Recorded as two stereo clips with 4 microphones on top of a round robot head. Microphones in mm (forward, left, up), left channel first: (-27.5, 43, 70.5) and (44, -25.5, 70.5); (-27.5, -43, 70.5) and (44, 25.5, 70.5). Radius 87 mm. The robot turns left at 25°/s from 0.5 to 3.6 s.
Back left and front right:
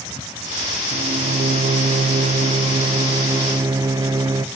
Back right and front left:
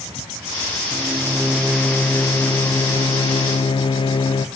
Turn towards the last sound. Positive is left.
turn(degrees=-100)